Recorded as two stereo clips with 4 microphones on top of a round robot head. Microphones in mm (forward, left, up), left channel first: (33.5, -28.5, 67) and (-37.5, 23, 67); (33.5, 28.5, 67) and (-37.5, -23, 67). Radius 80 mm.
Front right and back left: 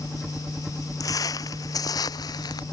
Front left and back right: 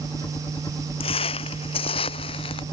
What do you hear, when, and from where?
0.0 s a helicopter: 65° left
1.0 s footsteps: 20° left; by 2.6 s 10° left